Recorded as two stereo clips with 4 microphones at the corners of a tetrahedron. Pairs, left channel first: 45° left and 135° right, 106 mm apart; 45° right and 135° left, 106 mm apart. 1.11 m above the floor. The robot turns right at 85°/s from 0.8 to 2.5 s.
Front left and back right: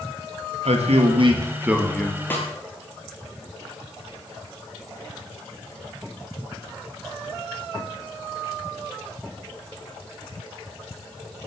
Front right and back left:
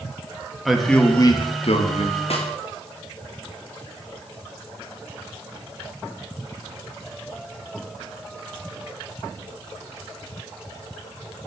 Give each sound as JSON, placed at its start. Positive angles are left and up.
{"t": 0.7, "sound": "a man speaking", "azimuth_deg": -135, "distance_m": 1.6}
{"t": 2.3, "sound": "a snare drum", "azimuth_deg": -25, "distance_m": 2.5}